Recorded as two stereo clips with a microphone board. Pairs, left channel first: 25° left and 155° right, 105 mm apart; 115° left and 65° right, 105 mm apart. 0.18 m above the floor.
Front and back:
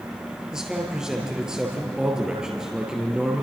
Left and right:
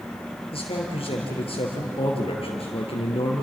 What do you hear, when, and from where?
0.5 s a man speaking: 120° left, 4 m